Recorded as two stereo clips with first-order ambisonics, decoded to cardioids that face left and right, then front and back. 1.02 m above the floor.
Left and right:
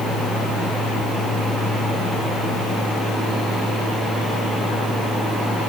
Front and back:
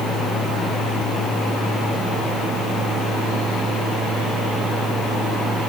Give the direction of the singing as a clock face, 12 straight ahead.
I don't hear singing.